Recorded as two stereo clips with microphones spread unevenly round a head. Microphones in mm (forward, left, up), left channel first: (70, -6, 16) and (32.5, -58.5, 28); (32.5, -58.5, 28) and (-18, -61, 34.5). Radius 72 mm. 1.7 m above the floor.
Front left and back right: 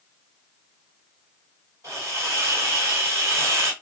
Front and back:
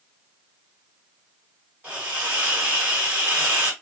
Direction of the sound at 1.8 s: 150° right.